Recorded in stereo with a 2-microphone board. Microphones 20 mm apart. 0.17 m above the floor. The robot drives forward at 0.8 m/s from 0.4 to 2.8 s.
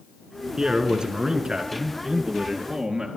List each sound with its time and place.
0.6 s a man speaking: 50° right (ahead or behind), 2.5 m; by 3.1 s 35° right (ahead or behind), 3 m